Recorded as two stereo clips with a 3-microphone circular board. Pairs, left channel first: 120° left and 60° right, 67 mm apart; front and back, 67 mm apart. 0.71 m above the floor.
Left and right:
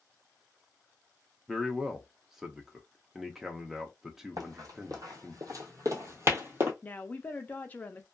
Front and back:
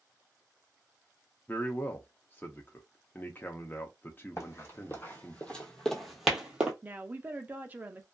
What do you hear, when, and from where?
1.5 s a man speaking: 15° left, 0.5 m
4.4 s running footsteps: 40° right, 1.5 m; by 6.7 s 110° right, 1.1 m
6.8 s a woman speaking: 150° left, 0.5 m